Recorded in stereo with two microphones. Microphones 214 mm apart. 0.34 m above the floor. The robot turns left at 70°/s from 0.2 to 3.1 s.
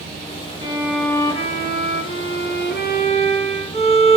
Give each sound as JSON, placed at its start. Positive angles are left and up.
{"t": 0.6, "sound": "a violin", "azimuth_deg": -155, "distance_m": 2.0}